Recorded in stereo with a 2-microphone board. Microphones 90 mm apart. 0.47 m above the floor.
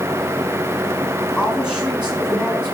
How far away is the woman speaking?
About 5.5 m.